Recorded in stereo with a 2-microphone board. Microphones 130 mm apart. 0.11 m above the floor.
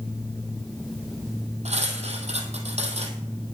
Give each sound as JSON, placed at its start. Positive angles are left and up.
{"t": 1.6, "sound": "cutlery clinking", "side_deg": -55, "distance_m": 2.0}